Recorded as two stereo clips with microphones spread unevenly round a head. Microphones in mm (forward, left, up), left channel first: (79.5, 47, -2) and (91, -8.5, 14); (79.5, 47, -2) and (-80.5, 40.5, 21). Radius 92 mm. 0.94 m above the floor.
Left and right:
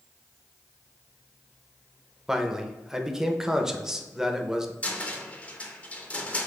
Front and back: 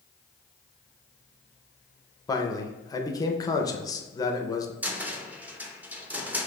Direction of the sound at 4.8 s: 95° left.